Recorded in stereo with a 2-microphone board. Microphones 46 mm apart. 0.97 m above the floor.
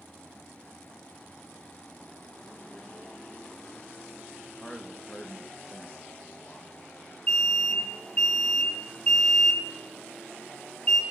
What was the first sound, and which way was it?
A man speaking, 10° left (ahead or behind).